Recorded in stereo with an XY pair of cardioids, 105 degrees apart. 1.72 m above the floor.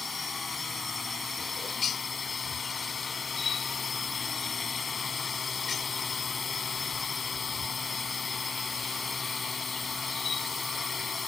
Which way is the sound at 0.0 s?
30° left.